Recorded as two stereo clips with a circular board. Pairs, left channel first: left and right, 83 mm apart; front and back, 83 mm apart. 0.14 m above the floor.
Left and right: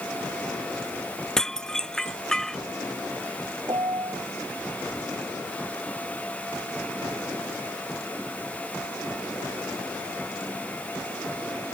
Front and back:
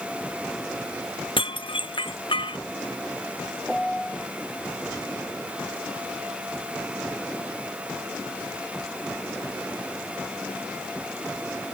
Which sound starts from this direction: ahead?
Dishes clattering, at 1.4 s.